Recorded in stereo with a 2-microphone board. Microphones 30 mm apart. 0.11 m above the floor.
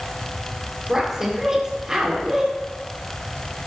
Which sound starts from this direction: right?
A woman speaking, at 0.9 s.